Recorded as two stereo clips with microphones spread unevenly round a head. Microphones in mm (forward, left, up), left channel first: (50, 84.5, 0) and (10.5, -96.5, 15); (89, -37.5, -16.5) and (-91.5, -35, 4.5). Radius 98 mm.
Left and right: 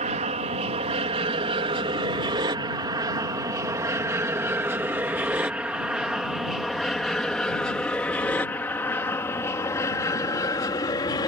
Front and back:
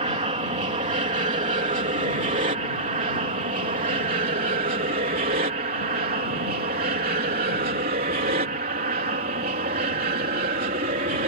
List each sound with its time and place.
0.0 s an aircraft: 140° right; by 11.3 s 140° left